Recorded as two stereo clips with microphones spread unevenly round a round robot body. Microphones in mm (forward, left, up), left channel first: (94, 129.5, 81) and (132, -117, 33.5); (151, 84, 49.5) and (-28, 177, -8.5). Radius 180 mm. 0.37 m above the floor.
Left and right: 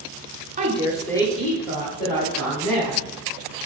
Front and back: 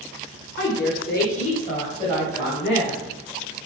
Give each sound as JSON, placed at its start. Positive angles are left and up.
{"t": 0.6, "sound": "a woman speaking", "azimuth_deg": -60, "distance_m": 1.1}